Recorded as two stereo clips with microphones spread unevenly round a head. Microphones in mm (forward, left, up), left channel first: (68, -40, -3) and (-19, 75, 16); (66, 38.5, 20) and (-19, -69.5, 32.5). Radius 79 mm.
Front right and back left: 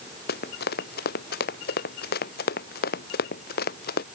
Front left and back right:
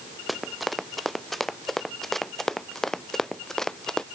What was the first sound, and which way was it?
Running footsteps, 40° right.